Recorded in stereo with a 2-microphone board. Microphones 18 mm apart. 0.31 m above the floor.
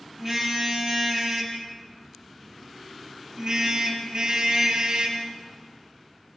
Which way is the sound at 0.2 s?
15° right (ahead or behind).